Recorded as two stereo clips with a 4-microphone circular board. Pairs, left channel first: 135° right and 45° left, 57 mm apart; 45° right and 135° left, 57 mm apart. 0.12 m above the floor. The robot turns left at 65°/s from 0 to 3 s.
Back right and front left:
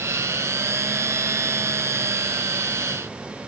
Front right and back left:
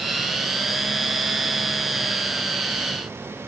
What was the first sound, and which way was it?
Only background noise.